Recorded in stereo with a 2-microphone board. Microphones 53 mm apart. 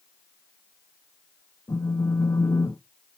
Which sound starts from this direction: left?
A phone buzzing, at 1.7 s.